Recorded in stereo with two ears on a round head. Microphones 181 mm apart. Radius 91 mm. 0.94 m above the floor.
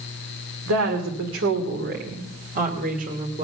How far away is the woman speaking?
About 2.5 m.